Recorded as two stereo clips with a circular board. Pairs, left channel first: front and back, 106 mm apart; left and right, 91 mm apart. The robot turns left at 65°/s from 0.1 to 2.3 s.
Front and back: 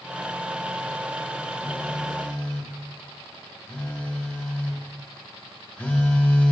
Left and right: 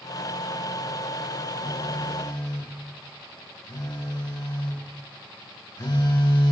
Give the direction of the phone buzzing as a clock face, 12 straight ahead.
8 o'clock.